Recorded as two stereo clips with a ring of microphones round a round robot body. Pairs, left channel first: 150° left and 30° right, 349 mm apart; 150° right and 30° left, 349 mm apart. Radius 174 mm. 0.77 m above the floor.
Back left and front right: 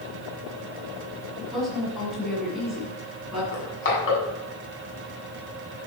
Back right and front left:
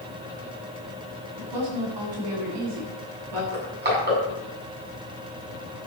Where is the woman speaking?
60° left, 7.5 m.